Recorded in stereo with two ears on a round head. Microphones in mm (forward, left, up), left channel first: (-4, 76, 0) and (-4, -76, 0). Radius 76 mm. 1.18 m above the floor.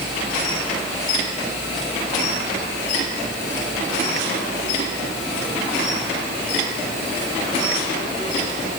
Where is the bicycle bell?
No bicycle bell in this recording.